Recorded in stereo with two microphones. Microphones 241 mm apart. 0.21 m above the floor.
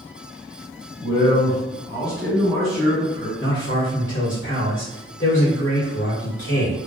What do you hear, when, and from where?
1.0 s a man speaking: 40° left (ahead or behind), 2.0 m; by 3.3 s 15° right (ahead or behind), 1.6 m
3.4 s a man speaking: 55° left (ahead or behind), 1.9 m